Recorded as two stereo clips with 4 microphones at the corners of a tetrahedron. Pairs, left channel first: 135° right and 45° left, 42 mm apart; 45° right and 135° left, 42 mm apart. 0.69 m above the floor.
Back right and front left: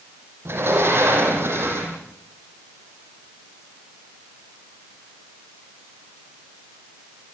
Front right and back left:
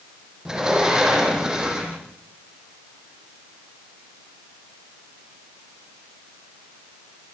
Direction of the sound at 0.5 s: 60° left.